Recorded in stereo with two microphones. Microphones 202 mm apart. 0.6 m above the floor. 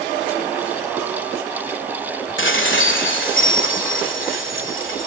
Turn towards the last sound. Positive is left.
turn(degrees=75)  # may be behind; listen again after turning